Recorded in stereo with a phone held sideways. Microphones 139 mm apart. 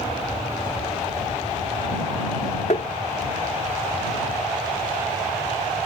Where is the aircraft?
40° left (ahead or behind).